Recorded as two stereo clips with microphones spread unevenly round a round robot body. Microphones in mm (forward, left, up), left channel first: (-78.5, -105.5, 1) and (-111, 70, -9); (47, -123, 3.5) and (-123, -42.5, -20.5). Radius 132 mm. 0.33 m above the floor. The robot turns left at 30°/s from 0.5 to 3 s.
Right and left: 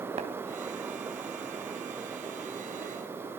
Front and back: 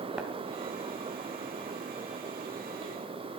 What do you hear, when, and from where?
0.2 s tapping: 80° left, 1.6 m